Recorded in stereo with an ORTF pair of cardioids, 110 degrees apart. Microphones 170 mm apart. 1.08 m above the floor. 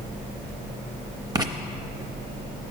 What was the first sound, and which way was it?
Writing, 20° right.